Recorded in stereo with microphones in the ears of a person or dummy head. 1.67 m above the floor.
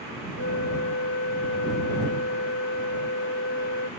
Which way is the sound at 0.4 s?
75° left (ahead or behind).